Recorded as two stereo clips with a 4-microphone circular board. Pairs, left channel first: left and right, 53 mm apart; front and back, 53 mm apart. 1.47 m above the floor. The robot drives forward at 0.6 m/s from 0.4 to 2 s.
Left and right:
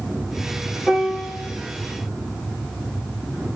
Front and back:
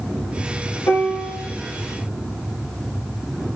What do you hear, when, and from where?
0.9 s a piano: 10° left, 1.4 m